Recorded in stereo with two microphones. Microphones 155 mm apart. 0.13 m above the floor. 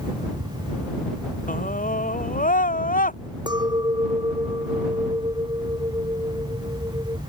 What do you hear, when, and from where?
1.5 s a scream: 60° left (ahead or behind)
3.5 s a clink: 30° right (ahead or behind)